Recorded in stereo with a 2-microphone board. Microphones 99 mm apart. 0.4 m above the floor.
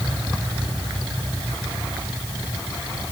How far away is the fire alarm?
I don't hear a fire alarm.